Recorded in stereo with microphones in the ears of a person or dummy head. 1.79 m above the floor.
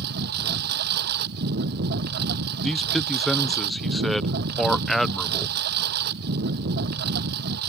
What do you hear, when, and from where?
0.0 s a lawn mower: 60° right (ahead or behind)
2.6 s a man speaking: centre (ahead or behind)